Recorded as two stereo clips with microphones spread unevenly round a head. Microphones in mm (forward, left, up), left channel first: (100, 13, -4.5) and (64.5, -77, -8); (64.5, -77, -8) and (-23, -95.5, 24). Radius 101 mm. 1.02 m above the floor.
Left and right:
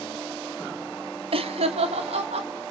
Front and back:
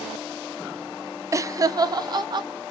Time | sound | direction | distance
1.3 | laughter | 105° right | 1.4 m